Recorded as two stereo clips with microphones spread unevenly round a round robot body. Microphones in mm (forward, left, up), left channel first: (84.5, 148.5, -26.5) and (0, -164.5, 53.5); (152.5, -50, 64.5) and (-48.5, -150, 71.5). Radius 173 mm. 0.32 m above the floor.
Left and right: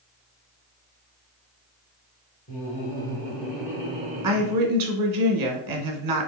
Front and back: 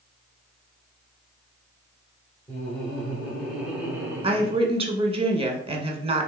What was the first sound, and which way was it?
Laughter, 105° left.